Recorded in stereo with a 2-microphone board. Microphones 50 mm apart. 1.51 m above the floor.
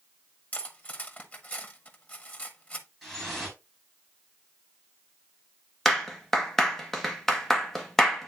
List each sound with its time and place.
0.5 s cutlery clinking: 30° left (ahead or behind), 1.2 m
3.0 s dripping: 5° left (ahead or behind), 3.5 m
5.8 s a clap: 10° left (ahead or behind), 1.5 m